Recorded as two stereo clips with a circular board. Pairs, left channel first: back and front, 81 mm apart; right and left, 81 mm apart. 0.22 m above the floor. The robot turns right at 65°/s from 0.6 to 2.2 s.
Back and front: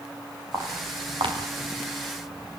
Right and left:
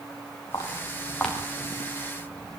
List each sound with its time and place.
0.5 s footsteps: 55° right, 9.5 m; by 2.6 s 55° left, 7.5 m